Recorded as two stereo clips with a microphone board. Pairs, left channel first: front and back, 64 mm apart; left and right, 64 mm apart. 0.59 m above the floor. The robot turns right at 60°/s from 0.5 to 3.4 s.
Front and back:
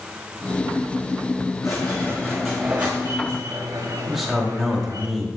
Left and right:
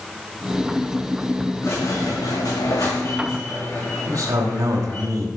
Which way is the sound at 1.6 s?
40° left.